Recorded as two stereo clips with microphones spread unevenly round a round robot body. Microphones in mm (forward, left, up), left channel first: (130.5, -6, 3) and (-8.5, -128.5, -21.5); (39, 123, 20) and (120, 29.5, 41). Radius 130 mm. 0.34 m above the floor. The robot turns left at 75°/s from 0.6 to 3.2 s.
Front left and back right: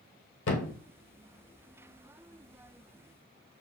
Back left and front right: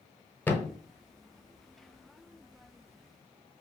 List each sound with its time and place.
0.5 s a thud: 55° left, 0.8 m; by 0.8 s 40° left, 0.8 m